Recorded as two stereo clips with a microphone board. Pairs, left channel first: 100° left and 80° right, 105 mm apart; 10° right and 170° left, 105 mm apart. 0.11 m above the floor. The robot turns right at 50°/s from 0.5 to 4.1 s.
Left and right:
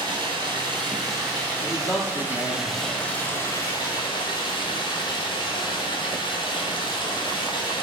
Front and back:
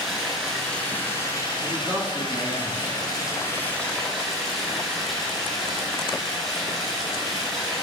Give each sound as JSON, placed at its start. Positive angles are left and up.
{"t": 0.0, "sound": "running water", "azimuth_deg": -100, "distance_m": 1.5}
{"t": 1.6, "sound": "a man speaking", "azimuth_deg": 180, "distance_m": 1.2}